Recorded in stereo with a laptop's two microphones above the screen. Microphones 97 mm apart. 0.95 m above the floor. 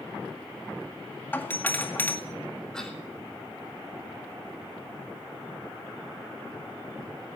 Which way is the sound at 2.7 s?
5° left (ahead or behind).